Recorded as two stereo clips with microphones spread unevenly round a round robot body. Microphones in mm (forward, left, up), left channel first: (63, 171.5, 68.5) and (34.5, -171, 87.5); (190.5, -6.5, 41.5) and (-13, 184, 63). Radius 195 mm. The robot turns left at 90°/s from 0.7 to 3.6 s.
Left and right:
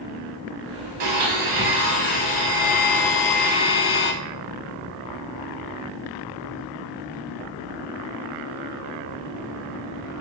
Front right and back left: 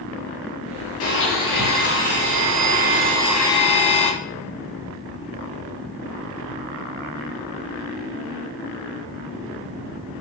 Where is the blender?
100° right, 1.1 m; by 4.1 s 25° left, 1.1 m.